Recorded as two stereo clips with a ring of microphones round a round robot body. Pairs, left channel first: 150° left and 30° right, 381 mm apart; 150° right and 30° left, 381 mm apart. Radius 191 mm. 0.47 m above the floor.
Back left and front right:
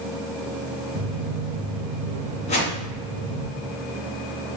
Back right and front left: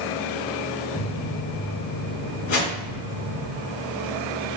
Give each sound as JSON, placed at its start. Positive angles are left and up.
{"t": 0.9, "sound": "footsteps", "azimuth_deg": -80, "distance_m": 2.5}
{"t": 2.5, "sound": "a whoosh", "azimuth_deg": -135, "distance_m": 3.0}